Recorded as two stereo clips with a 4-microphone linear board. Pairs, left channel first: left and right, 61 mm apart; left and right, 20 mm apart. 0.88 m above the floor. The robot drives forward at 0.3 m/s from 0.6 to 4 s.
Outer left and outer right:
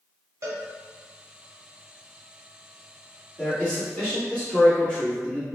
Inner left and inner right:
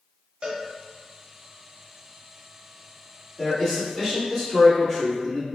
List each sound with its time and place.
0.4 s a cowbell: 50° right (ahead or behind), 0.6 m
3.4 s a man speaking: 20° left (ahead or behind), 1.3 m